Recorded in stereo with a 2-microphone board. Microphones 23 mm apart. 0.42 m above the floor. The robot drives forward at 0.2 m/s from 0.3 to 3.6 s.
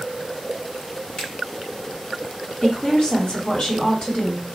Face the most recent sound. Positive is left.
turn(degrees=35)  # may be behind; listen again after turning